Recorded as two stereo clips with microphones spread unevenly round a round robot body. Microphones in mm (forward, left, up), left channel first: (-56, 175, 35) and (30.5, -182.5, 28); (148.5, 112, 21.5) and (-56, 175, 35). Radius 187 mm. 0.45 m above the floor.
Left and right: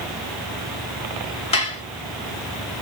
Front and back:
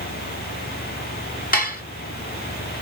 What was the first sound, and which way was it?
Dishes clattering, 30° left.